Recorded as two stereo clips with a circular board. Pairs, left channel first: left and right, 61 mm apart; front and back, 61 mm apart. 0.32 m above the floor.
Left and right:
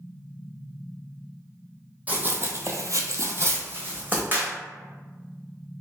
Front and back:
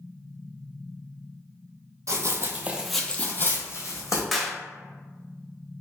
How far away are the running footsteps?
About 0.7 m.